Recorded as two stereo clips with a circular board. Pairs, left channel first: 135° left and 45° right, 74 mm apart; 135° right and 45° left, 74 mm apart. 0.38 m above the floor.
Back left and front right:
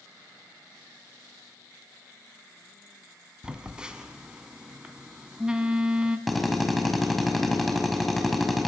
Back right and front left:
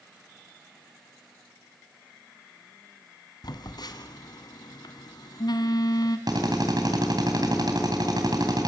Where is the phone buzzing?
125° right, 1.6 m.